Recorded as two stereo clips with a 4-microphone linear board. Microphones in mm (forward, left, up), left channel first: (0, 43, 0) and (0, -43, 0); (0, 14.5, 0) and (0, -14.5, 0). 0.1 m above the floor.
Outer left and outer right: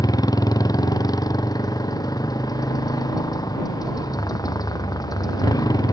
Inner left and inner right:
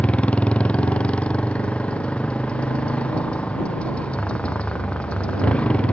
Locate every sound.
0.0 s a motorcycle: 45° left (ahead or behind)